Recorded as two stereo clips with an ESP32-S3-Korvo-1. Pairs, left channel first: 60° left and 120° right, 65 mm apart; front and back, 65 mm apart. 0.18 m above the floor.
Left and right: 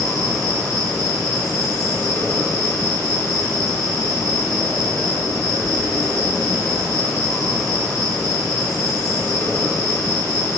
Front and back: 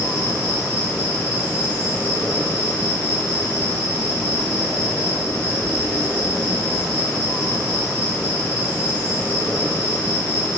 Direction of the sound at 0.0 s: 55° left.